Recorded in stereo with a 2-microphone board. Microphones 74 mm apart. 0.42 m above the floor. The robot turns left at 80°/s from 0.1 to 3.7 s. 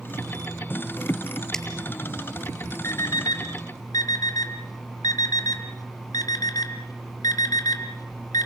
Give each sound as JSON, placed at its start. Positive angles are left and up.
{"t": 1.5, "sound": "a finger snap", "side_deg": 10, "distance_m": 7.0}
{"t": 2.8, "sound": "an alarm clock", "side_deg": 40, "distance_m": 1.8}